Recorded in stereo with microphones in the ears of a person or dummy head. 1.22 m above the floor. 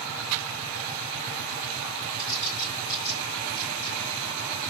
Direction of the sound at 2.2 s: 50° left (ahead or behind).